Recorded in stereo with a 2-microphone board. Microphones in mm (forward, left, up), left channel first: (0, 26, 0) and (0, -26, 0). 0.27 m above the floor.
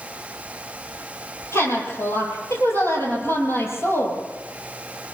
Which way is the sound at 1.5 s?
60° left (ahead or behind).